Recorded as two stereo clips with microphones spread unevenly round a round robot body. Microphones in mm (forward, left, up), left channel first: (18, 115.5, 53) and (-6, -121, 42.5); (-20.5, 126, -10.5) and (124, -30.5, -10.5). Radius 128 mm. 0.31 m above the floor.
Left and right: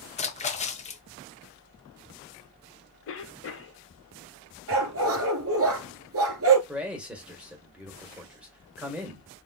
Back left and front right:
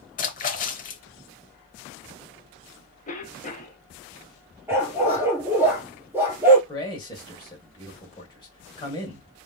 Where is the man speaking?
175° right, 1.6 m.